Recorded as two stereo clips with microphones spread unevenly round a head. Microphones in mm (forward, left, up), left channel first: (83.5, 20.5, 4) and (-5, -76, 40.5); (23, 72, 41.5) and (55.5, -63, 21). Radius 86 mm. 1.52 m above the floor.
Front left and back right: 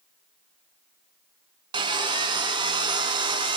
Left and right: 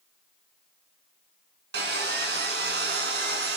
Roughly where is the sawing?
Right.